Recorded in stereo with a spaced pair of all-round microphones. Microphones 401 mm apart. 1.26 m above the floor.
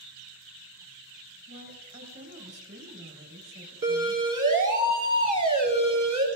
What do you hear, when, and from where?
1.5 s a woman speaking: 35° right (ahead or behind), 5 m
3.8 s a siren: 55° right (ahead or behind), 9 m; by 6.3 s 45° right (ahead or behind), 7 m